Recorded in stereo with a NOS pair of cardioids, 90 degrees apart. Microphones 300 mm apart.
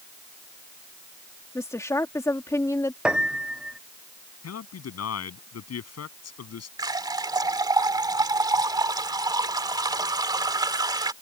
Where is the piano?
5° right.